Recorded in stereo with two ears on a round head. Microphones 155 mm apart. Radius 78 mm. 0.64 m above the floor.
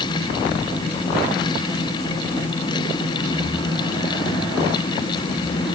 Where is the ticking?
I don't hear ticking.